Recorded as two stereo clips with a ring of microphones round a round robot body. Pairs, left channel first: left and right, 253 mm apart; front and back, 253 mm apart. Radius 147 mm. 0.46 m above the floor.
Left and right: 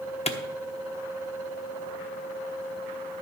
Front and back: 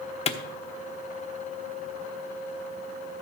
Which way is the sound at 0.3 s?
45° left.